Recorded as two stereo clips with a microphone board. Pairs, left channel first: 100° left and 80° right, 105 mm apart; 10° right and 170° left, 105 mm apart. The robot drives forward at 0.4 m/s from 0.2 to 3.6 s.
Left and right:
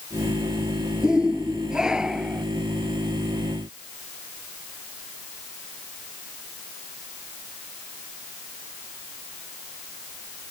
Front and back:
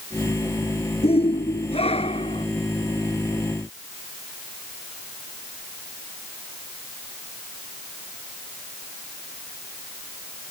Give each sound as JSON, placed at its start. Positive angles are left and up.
{"t": 1.0, "sound": "a shout", "azimuth_deg": 5}